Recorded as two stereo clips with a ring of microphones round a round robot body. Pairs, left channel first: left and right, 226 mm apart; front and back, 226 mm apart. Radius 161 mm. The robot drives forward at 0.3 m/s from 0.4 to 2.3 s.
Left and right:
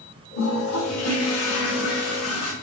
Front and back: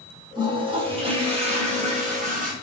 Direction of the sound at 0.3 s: 110° left.